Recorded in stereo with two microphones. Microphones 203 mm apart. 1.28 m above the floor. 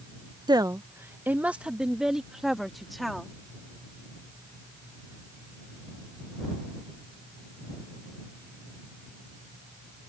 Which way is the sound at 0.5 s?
20° right (ahead or behind).